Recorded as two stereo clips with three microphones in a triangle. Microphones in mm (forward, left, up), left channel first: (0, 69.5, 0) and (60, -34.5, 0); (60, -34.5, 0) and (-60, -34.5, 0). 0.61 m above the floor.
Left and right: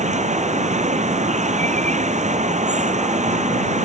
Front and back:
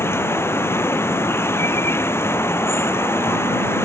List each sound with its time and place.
0.0 s running water: 70° right